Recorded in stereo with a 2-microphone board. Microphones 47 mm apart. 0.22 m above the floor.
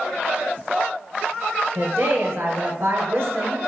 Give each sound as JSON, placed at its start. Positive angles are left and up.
{"t": 1.8, "sound": "a woman speaking", "side_deg": -55, "distance_m": 3.0}